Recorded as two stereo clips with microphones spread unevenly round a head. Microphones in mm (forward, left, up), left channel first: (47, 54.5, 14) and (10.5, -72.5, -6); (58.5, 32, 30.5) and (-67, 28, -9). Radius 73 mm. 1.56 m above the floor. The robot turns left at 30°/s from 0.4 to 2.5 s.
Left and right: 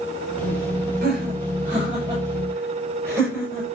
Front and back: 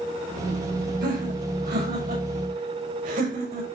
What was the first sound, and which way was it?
Laughter, 140° right.